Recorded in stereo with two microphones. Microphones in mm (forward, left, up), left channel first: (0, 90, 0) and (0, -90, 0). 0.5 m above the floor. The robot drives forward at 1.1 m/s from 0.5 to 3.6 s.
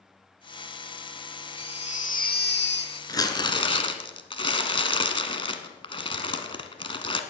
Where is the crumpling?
20° left (ahead or behind), 1.7 m; by 7.2 s 30° left (ahead or behind), 1.2 m.